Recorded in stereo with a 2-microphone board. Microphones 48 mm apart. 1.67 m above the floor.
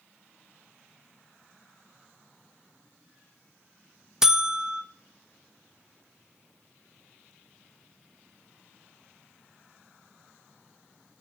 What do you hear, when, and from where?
4.2 s a buzzer: 10° right (ahead or behind), 0.6 m